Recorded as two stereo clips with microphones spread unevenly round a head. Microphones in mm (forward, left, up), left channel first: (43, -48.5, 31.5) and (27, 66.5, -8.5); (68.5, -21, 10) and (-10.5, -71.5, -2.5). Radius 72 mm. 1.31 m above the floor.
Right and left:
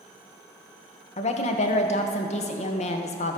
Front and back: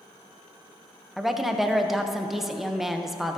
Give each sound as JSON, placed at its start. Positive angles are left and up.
{"t": 1.2, "sound": "a woman speaking", "azimuth_deg": -60, "distance_m": 0.8}